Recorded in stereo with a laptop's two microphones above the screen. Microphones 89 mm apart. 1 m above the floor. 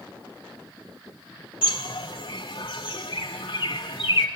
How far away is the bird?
About 1.6 m.